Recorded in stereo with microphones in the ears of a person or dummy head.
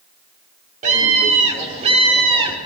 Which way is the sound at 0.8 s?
45° right (ahead or behind).